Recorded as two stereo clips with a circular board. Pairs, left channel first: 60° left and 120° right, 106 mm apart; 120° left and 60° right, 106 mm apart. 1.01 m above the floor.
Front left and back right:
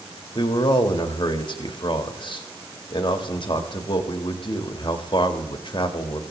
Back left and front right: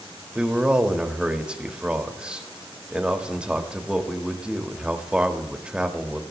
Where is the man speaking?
20° left, 1.7 m.